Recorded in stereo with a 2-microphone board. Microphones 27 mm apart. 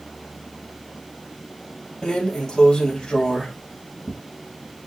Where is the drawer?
40° left (ahead or behind), 1.6 m.